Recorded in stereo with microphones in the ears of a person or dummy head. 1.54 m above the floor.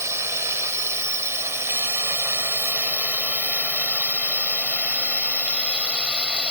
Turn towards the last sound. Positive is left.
turn(degrees=0)  # may be behind; listen again after turning